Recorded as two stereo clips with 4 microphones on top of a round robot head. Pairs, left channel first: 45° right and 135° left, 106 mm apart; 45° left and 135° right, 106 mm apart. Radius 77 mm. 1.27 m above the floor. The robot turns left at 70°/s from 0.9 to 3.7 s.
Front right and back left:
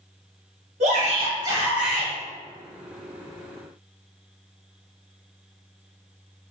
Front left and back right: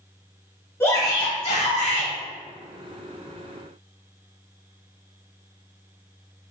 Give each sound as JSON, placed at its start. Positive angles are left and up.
{"t": 0.8, "sound": "a shout", "azimuth_deg": 115, "distance_m": 1.7}